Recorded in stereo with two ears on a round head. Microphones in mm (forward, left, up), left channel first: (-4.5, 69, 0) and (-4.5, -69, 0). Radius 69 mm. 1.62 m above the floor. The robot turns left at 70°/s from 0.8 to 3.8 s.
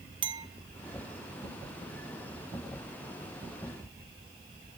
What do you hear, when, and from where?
0.2 s a clink: 35° right (ahead or behind), 1.0 m